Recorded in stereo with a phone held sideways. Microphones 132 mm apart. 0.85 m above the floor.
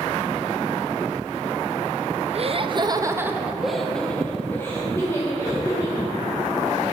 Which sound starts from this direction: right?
Laughter, at 2.3 s.